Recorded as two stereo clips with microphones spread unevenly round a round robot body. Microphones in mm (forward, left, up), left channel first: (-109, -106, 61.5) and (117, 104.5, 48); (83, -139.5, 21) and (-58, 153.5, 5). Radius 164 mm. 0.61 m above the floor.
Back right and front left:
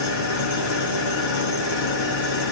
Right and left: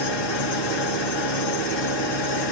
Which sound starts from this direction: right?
An engine running, at 0.0 s.